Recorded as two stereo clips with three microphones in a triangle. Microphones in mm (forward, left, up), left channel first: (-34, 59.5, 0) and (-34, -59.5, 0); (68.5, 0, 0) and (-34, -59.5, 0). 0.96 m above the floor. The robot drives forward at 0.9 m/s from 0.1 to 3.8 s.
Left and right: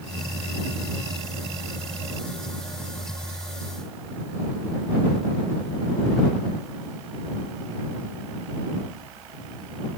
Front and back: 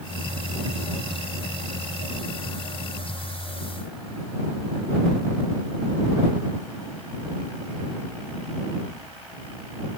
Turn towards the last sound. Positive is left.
No sound to turn to.